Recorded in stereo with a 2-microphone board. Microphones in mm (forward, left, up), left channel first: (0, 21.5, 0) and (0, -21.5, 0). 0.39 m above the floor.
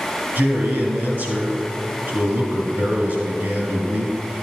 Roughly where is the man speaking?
Right.